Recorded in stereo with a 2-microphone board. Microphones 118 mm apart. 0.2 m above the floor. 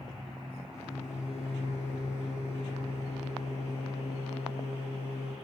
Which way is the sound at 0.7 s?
75° left (ahead or behind).